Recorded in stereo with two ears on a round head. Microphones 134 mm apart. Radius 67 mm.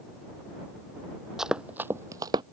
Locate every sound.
1.4 s running footsteps: 5° right (ahead or behind); by 2.4 s 30° right (ahead or behind)